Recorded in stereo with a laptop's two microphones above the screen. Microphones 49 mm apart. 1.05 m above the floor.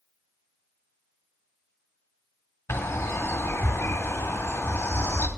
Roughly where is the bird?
Left.